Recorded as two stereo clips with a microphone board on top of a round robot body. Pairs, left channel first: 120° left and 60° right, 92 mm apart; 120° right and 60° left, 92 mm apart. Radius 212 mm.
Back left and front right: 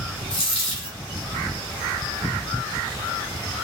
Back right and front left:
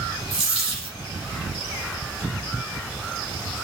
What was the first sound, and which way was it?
A dropped coin, 85° left.